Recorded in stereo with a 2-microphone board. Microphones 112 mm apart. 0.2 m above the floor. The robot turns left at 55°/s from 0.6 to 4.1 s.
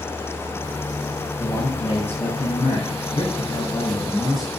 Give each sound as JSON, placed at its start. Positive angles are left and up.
{"t": 1.4, "sound": "a man speaking", "azimuth_deg": 145, "distance_m": 5.5}